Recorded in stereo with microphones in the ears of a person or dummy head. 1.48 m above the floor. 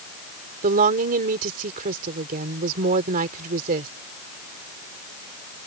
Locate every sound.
0.6 s a woman speaking: 50° right (ahead or behind)